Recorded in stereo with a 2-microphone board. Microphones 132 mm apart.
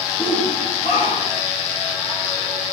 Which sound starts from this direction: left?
A shout, at 0.2 s.